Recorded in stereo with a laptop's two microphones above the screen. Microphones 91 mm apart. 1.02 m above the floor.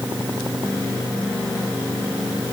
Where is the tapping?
No tapping in this recording.